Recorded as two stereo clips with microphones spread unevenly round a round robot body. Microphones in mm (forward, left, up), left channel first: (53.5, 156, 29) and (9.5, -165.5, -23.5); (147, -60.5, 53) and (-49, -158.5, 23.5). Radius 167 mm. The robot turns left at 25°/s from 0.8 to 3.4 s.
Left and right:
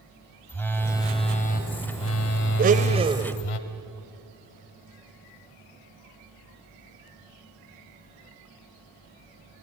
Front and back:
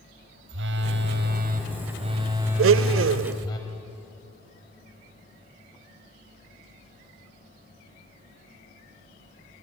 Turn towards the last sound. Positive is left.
turn(degrees=180)